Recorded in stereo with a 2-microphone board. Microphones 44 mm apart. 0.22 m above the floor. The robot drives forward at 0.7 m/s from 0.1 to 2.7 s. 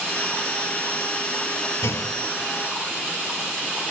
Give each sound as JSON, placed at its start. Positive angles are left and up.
{"t": 1.8, "sound": "a clunk", "side_deg": 75, "distance_m": 0.6}